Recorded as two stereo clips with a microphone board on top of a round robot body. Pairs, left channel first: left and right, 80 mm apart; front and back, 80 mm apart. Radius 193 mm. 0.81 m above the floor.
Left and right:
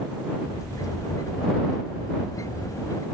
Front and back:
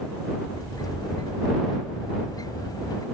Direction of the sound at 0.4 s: 40° left.